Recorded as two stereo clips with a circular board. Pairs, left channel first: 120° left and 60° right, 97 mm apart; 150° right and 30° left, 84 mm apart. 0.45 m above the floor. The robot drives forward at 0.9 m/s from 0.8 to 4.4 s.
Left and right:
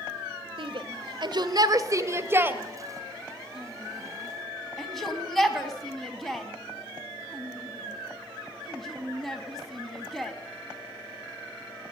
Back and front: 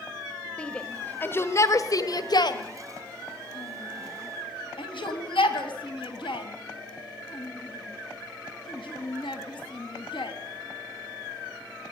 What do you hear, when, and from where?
0.6 s a shout: 75° right, 1.8 m; by 10.3 s 150° right, 3.5 m